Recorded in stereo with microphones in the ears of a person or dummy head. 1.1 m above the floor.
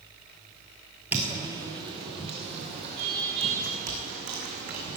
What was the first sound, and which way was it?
Footsteps, 5° right (ahead or behind).